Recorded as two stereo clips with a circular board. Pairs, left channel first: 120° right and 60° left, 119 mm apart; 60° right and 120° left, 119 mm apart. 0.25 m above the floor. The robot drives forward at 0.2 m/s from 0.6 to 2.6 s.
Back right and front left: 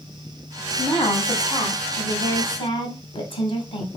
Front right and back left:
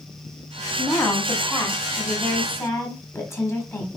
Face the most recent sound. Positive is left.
turn(degrees=-120)